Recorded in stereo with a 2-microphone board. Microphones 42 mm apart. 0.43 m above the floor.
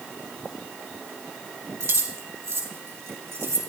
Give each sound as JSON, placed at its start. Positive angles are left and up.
{"t": 1.8, "sound": "keys jangling", "side_deg": -75, "distance_m": 2.0}